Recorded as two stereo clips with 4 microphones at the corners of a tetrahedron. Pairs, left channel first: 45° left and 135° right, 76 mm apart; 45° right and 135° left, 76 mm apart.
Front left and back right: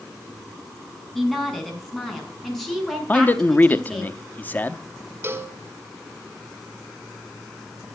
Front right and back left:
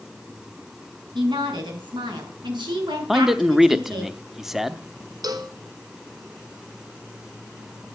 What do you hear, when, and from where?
1.1 s a woman speaking: 130° left, 5.5 m
3.1 s a man speaking: 55° left, 0.8 m
5.2 s a cowbell: 165° left, 1.7 m